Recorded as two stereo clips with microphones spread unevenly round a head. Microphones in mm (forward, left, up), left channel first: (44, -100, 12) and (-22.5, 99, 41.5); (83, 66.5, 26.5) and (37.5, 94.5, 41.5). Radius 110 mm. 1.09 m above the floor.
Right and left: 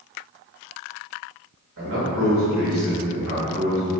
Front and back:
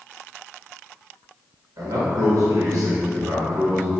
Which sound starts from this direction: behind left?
A man speaking, at 1.8 s.